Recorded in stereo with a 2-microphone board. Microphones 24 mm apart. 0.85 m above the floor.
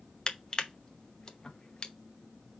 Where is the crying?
No crying in this recording.